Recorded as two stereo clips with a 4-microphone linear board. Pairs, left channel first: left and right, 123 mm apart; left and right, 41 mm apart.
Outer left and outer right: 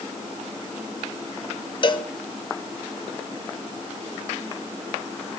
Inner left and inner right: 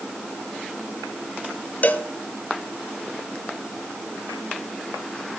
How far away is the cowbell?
About 0.7 m.